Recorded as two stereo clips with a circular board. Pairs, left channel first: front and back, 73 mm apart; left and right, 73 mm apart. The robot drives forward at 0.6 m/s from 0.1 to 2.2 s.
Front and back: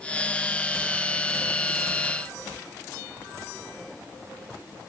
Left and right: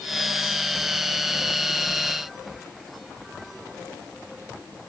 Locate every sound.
Only background noise.